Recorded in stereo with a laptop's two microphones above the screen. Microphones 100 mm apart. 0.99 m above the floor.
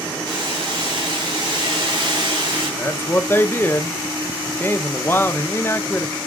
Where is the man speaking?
20° left (ahead or behind), 0.6 m.